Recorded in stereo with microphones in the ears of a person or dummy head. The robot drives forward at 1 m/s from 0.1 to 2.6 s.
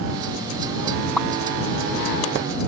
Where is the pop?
5° left (ahead or behind).